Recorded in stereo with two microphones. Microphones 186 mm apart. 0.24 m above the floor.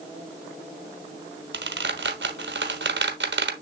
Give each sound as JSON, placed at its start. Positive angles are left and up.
{"t": 1.5, "sound": "a squeak", "side_deg": -80, "distance_m": 1.1}